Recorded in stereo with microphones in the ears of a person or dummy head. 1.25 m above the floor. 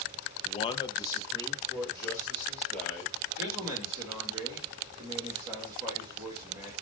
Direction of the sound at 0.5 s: 35° left (ahead or behind).